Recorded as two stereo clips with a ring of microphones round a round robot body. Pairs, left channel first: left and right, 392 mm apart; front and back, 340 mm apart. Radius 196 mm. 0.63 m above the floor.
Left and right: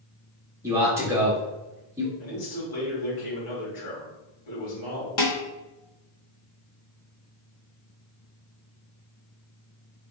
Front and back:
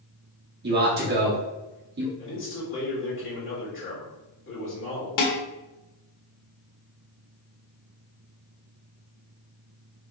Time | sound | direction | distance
0.6 | a man speaking | 165° right | 1.2 m
2.2 | a man speaking | 55° left | 2 m
5.2 | dishes clattering | 35° left | 1.5 m